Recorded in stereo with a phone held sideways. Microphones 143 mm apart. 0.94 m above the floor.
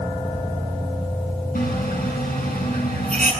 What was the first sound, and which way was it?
A running tap, 75° left (ahead or behind).